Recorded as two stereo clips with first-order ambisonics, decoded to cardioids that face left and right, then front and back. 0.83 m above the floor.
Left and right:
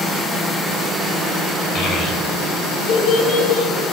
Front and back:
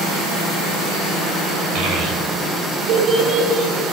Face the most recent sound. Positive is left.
turn(degrees=110)